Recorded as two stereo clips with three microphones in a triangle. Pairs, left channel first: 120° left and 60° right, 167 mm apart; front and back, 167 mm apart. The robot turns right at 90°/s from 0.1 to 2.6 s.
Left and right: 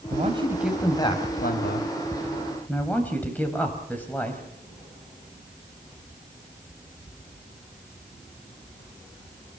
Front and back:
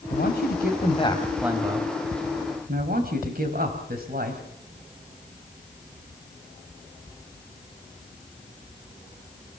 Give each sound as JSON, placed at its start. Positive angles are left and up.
{"t": 0.1, "sound": "a man speaking", "azimuth_deg": -25, "distance_m": 4.0}